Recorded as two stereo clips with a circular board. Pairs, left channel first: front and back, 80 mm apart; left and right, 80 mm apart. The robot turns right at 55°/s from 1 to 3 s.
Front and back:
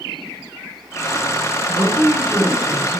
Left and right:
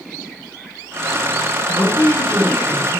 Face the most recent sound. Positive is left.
turn(degrees=-115)